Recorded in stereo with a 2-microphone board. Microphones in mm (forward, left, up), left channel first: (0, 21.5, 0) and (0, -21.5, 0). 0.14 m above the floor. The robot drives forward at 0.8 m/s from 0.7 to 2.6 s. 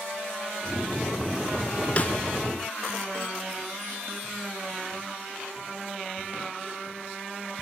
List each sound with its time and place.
2.0 s a snare drum: 30° left (ahead or behind), 1.0 m; by 2.1 s 35° left (ahead or behind), 0.9 m